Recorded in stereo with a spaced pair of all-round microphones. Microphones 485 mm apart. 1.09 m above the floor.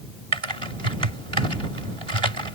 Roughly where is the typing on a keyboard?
Right.